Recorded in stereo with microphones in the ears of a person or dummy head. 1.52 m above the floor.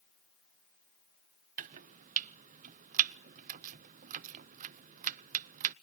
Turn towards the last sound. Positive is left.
turn(degrees=-40)  # may be behind; listen again after turning